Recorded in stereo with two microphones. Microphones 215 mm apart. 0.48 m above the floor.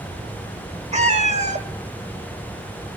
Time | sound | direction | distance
0.9 | a cat meowing | 30° right (ahead or behind) | 1.0 m